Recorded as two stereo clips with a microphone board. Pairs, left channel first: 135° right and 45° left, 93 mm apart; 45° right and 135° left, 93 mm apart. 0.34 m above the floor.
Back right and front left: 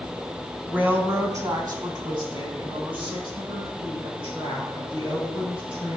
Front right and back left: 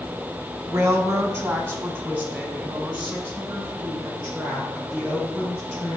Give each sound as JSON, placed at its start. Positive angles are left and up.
{"t": 0.7, "sound": "a woman speaking", "azimuth_deg": 110, "distance_m": 1.4}